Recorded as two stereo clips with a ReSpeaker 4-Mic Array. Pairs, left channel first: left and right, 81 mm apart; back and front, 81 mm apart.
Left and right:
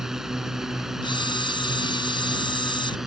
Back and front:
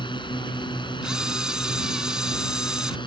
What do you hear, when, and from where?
0.0 s a drone: 175° right
1.0 s a camera shutter: 85° left